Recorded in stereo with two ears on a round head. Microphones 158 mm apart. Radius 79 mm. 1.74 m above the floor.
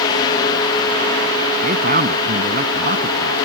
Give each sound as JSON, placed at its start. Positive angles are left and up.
{"t": 1.6, "sound": "a man speaking", "side_deg": -50}